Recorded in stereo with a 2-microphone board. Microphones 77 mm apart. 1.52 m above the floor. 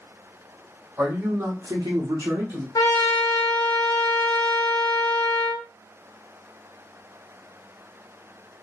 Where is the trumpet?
60° left (ahead or behind), 0.7 m.